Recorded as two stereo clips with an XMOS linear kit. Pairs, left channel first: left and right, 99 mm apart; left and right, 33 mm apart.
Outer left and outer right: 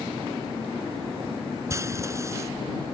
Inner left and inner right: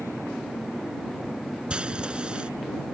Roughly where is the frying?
Right.